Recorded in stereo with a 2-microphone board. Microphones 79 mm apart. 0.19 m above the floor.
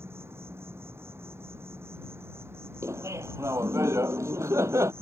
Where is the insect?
30° right (ahead or behind).